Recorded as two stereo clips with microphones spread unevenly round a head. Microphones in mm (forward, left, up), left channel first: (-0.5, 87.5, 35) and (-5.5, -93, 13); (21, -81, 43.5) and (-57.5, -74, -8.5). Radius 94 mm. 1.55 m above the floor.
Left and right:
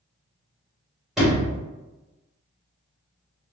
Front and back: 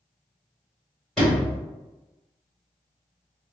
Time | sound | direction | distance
1.2 | a sliding door | 5° left | 1.6 m